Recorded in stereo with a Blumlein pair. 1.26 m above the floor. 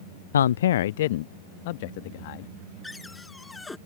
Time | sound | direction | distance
0.3 | a man speaking | 65° left | ?
2.8 | a cupboard door | 10° left | ?